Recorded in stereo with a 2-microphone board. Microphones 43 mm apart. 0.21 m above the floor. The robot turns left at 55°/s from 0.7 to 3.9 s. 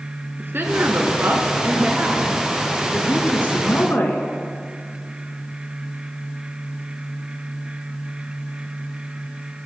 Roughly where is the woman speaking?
Right.